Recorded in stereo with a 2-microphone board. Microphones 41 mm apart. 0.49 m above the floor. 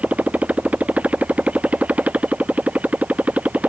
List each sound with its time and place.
0.0 s a motorcycle: 35° right (ahead or behind)